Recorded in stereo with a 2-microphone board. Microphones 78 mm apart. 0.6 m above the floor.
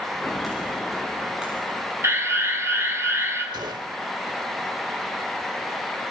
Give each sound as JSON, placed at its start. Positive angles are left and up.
{"t": 0.2, "sound": "footsteps", "side_deg": 0, "distance_m": 4.5}
{"t": 2.0, "sound": "an alarm", "side_deg": -35, "distance_m": 6.5}
{"t": 3.5, "sound": "a gunshot", "side_deg": -70, "distance_m": 1.5}